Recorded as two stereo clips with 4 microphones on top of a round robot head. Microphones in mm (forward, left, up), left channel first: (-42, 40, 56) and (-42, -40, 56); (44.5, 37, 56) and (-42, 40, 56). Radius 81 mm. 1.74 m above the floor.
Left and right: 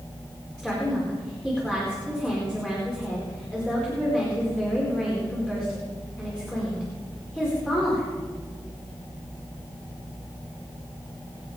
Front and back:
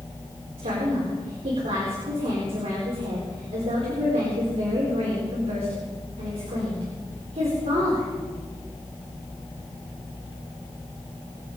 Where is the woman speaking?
170° left, 4.5 m.